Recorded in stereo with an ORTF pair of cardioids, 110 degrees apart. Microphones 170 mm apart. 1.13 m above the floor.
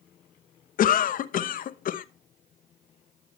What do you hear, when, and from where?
0.8 s a cough: 55° left, 0.8 m